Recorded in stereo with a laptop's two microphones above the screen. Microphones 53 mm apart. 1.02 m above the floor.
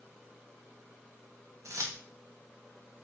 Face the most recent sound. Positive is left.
turn(degrees=-75)  # may be behind; listen again after turning